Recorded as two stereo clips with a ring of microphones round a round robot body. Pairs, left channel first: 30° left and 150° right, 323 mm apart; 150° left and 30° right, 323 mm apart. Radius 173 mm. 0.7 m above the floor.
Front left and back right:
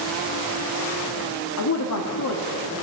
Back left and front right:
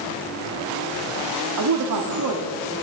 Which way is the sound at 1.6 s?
5° right.